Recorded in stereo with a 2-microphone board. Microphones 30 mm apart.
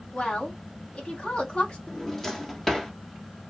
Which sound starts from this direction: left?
A woman speaking, at 0.1 s.